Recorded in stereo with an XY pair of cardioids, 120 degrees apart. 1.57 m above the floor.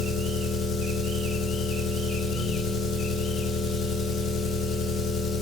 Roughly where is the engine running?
Ahead left.